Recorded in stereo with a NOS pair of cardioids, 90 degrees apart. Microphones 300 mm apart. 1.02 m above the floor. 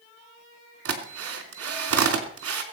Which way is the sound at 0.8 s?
50° right.